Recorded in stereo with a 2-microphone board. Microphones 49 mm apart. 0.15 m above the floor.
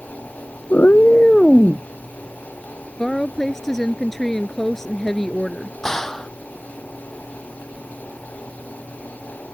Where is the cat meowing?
50° left (ahead or behind); by 1.9 s 5° left (ahead or behind).